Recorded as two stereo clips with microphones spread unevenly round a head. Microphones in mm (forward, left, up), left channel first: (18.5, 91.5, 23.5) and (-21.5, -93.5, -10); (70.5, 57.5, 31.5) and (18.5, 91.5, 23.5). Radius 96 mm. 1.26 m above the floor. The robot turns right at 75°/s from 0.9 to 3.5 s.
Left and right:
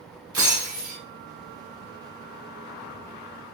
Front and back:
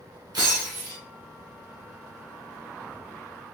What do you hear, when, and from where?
0.3 s breaking glass: straight behind, 1.9 m; by 1.0 s 175° right, 1.9 m